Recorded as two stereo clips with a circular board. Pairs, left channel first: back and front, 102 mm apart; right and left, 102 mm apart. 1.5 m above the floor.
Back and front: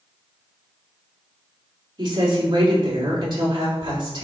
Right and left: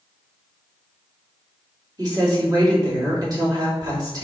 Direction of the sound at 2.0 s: 40° left.